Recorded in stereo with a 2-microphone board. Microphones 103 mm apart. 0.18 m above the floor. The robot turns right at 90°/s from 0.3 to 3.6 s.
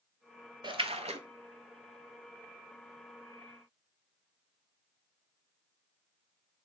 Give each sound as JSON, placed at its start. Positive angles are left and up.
{"t": 0.6, "sound": "a splash", "azimuth_deg": -130, "distance_m": 0.6}